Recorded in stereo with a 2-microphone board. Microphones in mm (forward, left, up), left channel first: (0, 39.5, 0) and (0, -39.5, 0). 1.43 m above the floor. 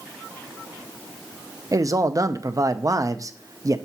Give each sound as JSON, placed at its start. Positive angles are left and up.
{"t": 1.7, "sound": "a man speaking", "side_deg": -45, "distance_m": 0.6}